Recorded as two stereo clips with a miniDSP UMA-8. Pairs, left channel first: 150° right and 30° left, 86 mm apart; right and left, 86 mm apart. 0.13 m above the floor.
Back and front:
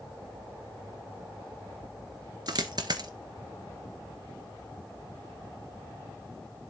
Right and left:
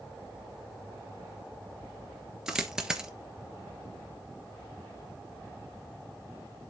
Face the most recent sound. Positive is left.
turn(degrees=10)